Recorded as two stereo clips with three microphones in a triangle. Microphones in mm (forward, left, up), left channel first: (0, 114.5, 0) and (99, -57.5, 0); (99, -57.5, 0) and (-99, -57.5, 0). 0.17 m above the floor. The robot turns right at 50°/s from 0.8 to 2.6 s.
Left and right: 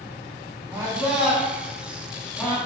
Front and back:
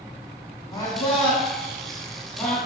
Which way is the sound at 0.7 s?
25° right.